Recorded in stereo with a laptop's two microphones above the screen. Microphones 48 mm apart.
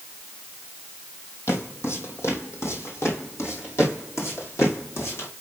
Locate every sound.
1.5 s footsteps: 65° left (ahead or behind), 2.5 m; by 5.3 s 70° left (ahead or behind), 3.5 m